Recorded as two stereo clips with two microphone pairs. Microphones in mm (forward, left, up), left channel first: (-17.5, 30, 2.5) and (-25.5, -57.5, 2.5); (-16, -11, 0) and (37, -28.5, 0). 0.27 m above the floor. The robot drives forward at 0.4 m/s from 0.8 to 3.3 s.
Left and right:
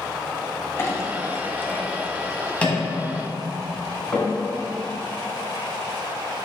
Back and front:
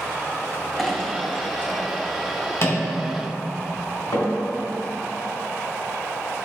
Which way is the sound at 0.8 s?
70° left.